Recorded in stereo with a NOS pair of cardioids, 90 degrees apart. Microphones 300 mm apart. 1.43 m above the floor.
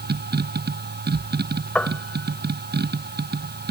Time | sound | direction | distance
0.0 | a machine running | 35° right | ?
1.8 | a piano | 5° left | ?